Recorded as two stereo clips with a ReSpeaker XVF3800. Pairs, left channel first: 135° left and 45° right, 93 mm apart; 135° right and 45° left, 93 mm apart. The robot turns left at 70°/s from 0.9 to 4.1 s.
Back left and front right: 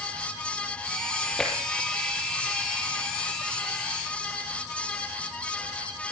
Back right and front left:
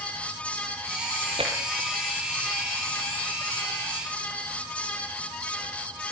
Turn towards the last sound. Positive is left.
turn(degrees=-135)